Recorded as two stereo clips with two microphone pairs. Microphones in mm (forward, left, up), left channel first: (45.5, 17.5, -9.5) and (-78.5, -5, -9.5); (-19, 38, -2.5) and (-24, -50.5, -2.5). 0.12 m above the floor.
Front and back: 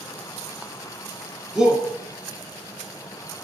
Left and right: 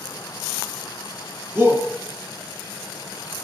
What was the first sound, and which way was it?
A shout, 105° right.